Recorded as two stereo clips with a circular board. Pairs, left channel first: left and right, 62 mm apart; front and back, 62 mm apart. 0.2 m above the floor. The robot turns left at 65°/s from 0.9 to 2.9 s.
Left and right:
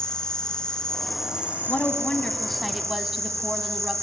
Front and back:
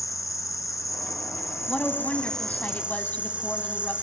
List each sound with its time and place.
0.0 s an insect: 15° left, 1.0 m; by 4.0 s 115° right, 1.0 m
1.7 s a woman speaking: 65° left, 1.1 m; by 3.9 s 15° right, 1.1 m